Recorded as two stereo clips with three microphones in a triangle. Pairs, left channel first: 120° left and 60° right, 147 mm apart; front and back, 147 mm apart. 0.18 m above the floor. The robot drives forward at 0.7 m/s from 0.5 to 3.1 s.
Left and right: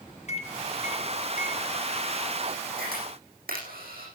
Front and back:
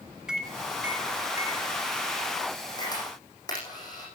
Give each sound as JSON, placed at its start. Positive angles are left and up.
{"t": 0.3, "sound": "a microwave", "azimuth_deg": 95, "distance_m": 2.0}
{"t": 2.8, "sound": "a camera shutter", "azimuth_deg": -60, "distance_m": 8.5}